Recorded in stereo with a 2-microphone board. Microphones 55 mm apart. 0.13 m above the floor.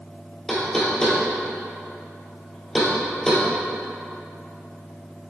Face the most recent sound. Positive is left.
turn(degrees=10)  # may be behind; listen again after turning